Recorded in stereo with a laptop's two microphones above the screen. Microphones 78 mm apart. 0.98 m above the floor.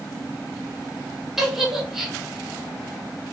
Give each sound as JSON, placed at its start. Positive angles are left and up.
{"t": 1.4, "sound": "a giggle", "side_deg": -5, "distance_m": 1.0}